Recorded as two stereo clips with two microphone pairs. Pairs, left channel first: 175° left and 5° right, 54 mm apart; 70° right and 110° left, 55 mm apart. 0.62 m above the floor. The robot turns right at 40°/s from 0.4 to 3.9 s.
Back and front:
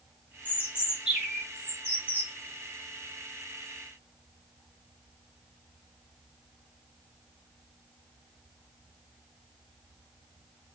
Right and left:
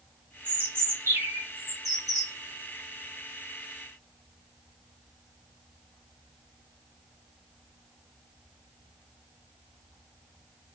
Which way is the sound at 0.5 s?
50° left.